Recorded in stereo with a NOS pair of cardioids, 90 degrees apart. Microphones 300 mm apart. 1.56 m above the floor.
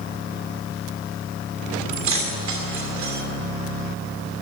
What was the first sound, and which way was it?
Keys jangling, 70° right.